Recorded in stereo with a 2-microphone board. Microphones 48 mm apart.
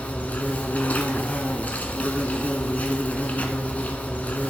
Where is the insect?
35° left (ahead or behind), 1.2 m.